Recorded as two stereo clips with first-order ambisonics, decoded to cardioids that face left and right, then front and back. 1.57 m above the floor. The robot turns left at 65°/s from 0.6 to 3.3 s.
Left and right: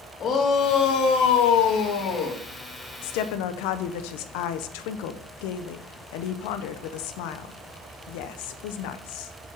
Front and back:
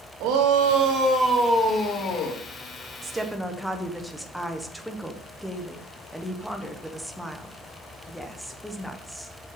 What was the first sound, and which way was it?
A shout, 150° left.